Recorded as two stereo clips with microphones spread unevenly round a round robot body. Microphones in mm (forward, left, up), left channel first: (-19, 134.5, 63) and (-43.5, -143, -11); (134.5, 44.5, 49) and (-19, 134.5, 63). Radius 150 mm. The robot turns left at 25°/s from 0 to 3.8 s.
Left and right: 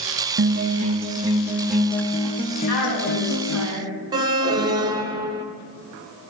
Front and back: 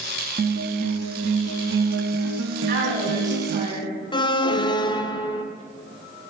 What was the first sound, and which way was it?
A guitar, 150° right.